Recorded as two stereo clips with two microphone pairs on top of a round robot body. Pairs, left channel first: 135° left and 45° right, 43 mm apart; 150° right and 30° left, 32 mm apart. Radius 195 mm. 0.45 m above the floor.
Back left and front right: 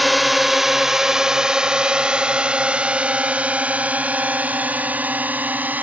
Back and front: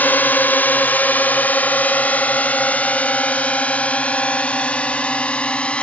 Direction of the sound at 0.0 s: 140° right.